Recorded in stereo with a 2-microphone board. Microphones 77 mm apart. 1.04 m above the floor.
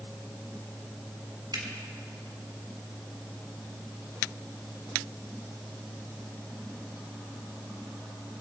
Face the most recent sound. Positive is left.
turn(degrees=-60)  # may be behind; listen again after turning